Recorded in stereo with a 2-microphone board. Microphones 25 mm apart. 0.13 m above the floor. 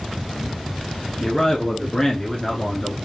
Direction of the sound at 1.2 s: 25° left (ahead or behind).